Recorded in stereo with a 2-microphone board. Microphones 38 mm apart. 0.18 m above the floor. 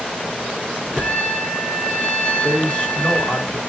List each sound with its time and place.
1.0 s a trumpet: 35° left (ahead or behind), 2 m
2.4 s a man speaking: 30° left (ahead or behind), 1.9 m